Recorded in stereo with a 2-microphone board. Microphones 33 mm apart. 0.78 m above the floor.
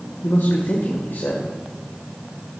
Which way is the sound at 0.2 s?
70° left (ahead or behind).